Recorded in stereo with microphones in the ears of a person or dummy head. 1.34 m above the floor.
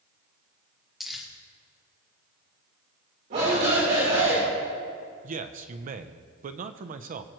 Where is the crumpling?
Centre (ahead or behind), 1.4 m.